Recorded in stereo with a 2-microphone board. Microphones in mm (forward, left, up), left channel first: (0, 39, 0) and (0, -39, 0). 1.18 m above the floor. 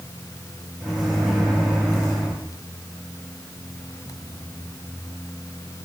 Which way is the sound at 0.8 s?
5° right (ahead or behind).